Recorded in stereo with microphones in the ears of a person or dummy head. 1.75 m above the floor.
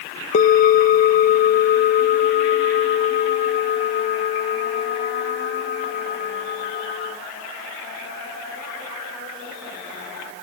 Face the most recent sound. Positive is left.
turn(degrees=55)  # may be behind; listen again after turning